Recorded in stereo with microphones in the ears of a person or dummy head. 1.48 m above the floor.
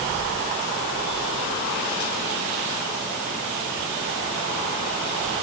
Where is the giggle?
I don't hear a giggle.